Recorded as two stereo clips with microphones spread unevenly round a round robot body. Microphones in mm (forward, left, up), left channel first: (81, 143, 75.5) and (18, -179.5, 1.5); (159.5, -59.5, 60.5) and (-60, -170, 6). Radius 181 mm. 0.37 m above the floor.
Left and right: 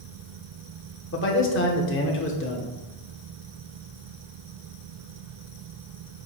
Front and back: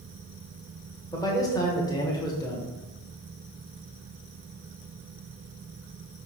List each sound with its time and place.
1.1 s a man speaking: 115° left, 1.1 m